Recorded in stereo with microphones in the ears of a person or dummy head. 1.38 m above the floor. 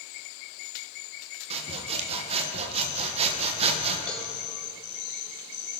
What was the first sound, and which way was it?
Sawing, 35° right (ahead or behind).